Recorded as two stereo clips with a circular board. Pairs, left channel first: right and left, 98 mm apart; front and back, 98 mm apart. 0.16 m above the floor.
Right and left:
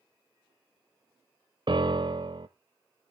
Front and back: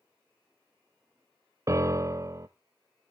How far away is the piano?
About 0.7 m.